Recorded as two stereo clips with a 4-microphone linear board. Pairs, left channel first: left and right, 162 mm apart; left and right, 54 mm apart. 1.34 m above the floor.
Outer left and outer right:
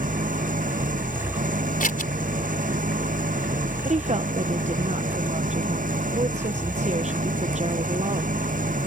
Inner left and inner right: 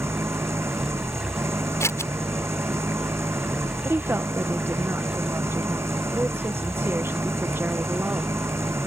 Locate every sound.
0.0 s an engine running: 60° right (ahead or behind)
1.8 s scissors: 60° left (ahead or behind)
3.9 s a woman speaking: 45° right (ahead or behind)